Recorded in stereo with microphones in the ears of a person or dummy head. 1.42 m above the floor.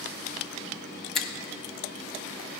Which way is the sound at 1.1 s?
5° left (ahead or behind).